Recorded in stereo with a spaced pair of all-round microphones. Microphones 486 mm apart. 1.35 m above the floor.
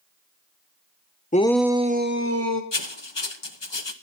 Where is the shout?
15° left (ahead or behind), 1.0 m; by 2.6 s 35° right (ahead or behind), 1.9 m.